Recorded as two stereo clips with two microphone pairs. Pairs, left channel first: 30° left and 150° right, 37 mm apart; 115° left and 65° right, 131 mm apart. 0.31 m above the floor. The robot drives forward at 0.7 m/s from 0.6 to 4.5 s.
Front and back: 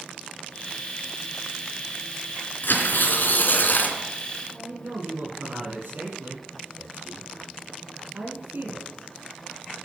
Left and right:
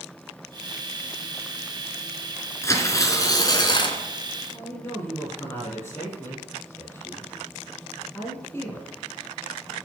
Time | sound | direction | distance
2.6 | tearing paper | 50° left | 2.5 m
4.5 | a man speaking | 175° right | 8 m